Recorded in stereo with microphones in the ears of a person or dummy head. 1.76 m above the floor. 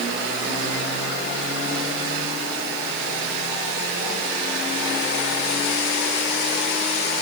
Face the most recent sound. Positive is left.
No sound to turn to.